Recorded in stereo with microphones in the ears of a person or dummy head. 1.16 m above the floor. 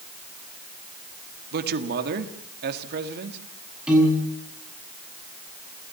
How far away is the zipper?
I don't hear a zipper.